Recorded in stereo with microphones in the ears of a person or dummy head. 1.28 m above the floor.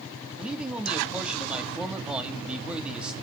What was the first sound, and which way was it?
A man speaking, 5° right (ahead or behind).